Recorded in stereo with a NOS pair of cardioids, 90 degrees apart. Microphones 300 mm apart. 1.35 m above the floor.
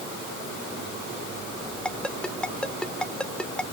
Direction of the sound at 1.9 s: 5° left.